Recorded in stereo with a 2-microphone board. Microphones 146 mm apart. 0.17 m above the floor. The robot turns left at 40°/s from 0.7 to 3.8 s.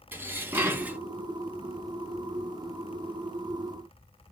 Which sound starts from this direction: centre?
Dishes clattering, at 0.1 s.